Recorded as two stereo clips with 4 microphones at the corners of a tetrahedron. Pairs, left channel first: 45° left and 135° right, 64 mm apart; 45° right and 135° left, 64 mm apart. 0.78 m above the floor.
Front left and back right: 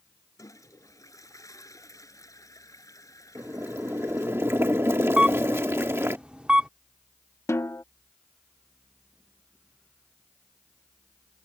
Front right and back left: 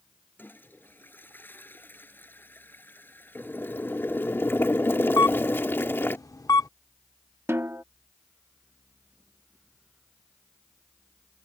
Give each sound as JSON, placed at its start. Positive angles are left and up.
{"t": 0.4, "sound": "a toilet flushing", "azimuth_deg": 15}
{"t": 3.4, "sound": "boiling", "azimuth_deg": -90}
{"t": 5.2, "sound": "a camera shutter", "azimuth_deg": -65}
{"t": 7.5, "sound": "a snare drum", "azimuth_deg": 90}